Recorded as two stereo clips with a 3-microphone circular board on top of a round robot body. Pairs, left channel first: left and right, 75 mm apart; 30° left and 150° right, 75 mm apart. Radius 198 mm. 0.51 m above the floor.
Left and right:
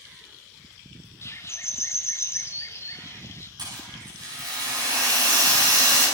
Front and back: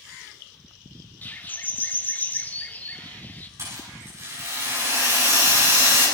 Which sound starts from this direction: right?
A rattle, at 3.6 s.